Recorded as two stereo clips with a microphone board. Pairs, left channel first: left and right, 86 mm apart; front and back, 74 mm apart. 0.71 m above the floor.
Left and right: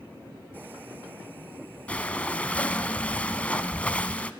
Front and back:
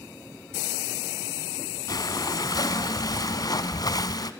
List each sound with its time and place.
1.9 s breathing: 15° left, 1.1 m